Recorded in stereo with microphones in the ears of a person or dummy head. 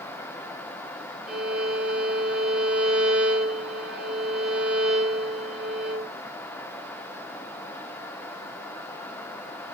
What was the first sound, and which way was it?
A violin, centre (ahead or behind).